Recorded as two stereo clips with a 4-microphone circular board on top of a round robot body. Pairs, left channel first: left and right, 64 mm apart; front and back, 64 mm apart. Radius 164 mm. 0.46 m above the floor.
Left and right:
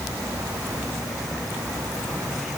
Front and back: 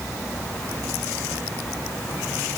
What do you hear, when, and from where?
Only background noise.